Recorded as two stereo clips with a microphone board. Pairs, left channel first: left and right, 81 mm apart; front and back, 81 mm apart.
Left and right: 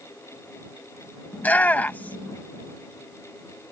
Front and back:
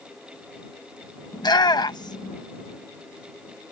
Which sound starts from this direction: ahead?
A shout, at 1.3 s.